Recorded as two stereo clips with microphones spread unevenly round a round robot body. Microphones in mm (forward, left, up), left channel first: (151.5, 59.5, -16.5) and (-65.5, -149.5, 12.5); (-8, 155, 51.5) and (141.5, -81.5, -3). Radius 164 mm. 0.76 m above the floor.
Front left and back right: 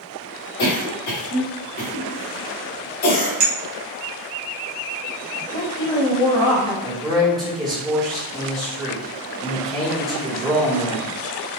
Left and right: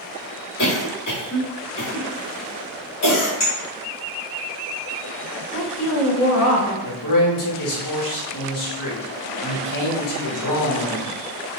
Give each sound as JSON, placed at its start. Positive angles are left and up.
{"t": 0.6, "sound": "a cough", "azimuth_deg": 85, "distance_m": 1.9}
{"t": 3.4, "sound": "a clink", "azimuth_deg": -170, "distance_m": 1.1}
{"t": 5.5, "sound": "a woman speaking", "azimuth_deg": 85, "distance_m": 1.3}
{"t": 6.8, "sound": "a man speaking", "azimuth_deg": 145, "distance_m": 1.3}